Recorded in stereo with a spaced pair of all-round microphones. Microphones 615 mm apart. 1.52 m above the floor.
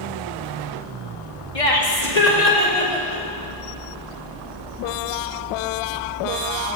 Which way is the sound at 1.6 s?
55° left (ahead or behind).